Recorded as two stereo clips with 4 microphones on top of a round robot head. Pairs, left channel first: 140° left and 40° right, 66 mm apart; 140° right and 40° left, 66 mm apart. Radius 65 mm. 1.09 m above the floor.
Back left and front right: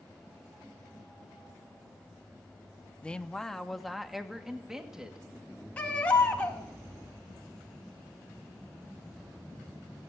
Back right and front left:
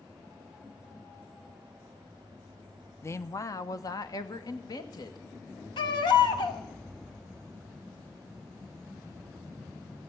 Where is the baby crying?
150° right, 1.6 m.